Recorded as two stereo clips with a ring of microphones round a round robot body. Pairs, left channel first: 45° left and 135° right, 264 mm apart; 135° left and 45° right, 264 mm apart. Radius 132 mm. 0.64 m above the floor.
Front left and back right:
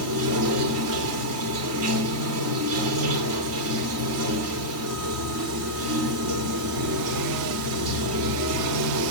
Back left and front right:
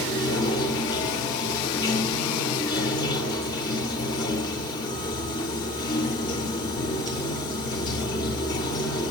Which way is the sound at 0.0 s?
155° right.